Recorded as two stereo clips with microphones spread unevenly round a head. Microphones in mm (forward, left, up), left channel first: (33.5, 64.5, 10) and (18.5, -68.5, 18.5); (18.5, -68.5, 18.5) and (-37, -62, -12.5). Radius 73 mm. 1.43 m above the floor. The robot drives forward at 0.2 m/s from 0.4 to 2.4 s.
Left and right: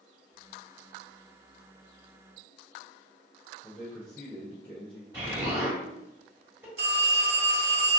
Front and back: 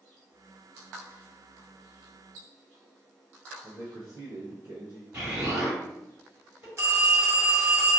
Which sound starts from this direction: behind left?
A man speaking, at 3.6 s.